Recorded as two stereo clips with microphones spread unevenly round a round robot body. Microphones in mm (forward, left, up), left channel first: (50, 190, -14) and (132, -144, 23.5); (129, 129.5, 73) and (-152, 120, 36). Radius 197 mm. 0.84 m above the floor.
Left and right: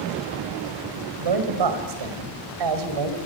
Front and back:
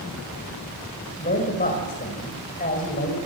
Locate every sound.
1.2 s a man speaking: 70° right, 5 m